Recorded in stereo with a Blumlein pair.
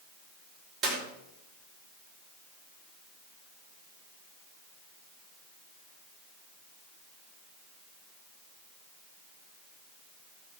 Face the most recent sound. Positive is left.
turn(degrees=-25)